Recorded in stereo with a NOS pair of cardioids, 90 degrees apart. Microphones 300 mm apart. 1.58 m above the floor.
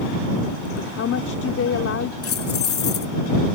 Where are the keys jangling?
50° left.